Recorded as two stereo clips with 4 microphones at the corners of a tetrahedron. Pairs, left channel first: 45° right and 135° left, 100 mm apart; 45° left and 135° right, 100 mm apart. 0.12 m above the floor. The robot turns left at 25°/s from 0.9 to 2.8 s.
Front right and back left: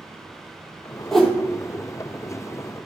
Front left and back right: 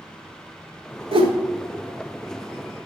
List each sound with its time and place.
1.1 s a whoosh: 130° right, 1.0 m; by 1.3 s 135° right, 1.0 m